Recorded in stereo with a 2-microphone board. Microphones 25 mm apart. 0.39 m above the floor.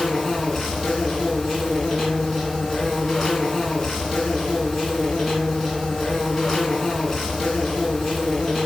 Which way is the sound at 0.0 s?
10° left (ahead or behind).